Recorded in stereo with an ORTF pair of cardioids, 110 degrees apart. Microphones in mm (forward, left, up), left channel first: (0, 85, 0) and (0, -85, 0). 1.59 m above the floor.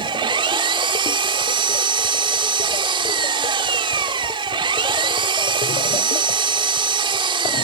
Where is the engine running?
30° right.